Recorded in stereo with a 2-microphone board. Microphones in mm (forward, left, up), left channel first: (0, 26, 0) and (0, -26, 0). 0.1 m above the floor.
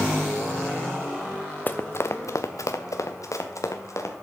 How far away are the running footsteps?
About 0.7 m.